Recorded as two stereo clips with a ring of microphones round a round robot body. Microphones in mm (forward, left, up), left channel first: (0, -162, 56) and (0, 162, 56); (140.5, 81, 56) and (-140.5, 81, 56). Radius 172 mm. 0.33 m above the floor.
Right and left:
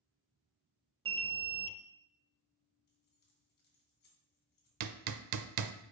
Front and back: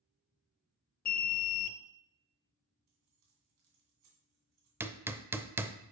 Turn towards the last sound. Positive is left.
turn(degrees=100)